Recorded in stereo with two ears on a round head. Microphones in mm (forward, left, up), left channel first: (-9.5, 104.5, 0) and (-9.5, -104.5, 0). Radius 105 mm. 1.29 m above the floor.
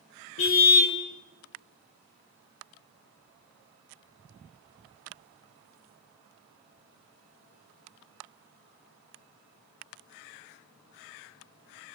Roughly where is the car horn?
Left.